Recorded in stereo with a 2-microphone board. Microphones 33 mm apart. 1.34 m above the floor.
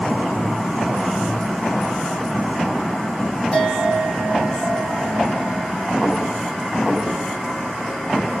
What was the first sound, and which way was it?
A bell, 30° left (ahead or behind).